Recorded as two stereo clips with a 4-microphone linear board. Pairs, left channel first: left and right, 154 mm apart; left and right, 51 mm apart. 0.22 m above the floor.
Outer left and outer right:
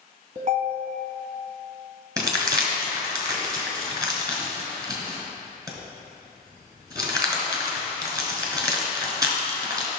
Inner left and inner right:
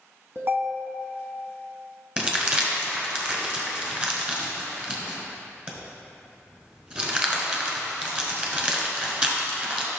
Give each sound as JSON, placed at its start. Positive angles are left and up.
{"t": 0.3, "sound": "a ringtone", "side_deg": -55, "distance_m": 0.9}
{"t": 2.2, "sound": "crumpling", "side_deg": -25, "distance_m": 1.6}